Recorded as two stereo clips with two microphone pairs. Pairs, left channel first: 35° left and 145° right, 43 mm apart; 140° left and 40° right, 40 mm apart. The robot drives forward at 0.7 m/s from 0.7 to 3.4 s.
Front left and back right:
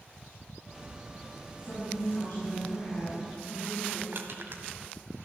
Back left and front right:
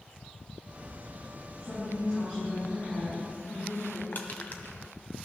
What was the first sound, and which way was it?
A woman speaking, 80° left.